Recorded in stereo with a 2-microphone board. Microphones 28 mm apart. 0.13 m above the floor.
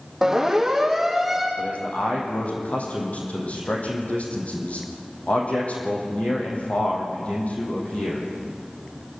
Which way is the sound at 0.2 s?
15° right (ahead or behind).